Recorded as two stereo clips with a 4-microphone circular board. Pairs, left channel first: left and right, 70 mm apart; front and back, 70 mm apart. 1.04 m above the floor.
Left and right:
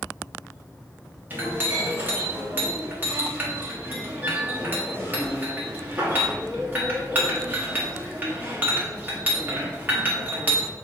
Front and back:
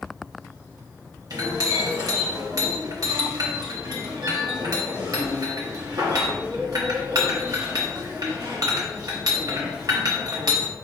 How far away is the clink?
About 1.1 m.